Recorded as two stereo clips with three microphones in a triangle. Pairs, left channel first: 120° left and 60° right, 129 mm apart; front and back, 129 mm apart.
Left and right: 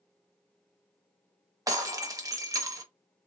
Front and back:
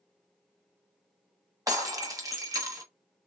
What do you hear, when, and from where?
1.7 s breaking glass: 120° right, 0.8 m